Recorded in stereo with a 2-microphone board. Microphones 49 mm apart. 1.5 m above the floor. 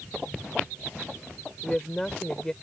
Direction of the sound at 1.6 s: 10° left (ahead or behind).